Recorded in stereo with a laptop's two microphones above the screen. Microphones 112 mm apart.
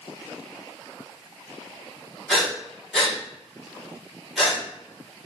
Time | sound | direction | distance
2.3 | breathing | 5° left (ahead or behind) | 1.3 m